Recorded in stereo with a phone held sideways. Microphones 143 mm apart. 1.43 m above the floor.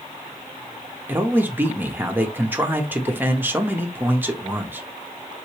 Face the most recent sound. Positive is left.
turn(degrees=-15)  # may be behind; listen again after turning